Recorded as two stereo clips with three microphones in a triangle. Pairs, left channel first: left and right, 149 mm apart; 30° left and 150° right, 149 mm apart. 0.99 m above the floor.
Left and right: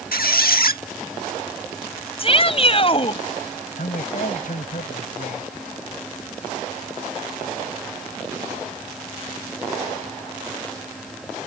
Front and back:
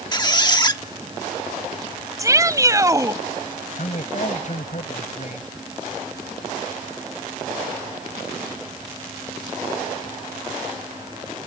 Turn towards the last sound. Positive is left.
turn(degrees=65)